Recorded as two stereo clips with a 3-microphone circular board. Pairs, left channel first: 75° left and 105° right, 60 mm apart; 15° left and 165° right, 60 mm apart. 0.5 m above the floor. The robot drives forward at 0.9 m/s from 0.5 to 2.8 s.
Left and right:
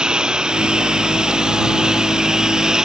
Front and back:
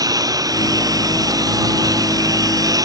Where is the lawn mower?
Straight behind; by 2.9 s 175° left.